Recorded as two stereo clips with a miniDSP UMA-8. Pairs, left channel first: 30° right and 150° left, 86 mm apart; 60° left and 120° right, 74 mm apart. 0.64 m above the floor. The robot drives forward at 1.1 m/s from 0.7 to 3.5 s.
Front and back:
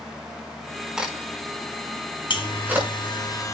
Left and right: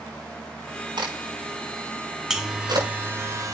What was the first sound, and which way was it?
A crack, 125° right.